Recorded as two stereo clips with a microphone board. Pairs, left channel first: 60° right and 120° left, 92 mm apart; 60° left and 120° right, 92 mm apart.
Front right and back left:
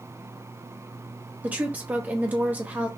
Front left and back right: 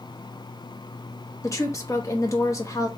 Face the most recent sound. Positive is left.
turn(degrees=60)